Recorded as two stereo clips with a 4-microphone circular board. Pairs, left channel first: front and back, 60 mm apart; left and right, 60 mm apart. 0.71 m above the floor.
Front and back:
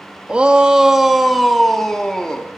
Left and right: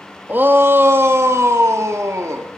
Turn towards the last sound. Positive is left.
turn(degrees=-75)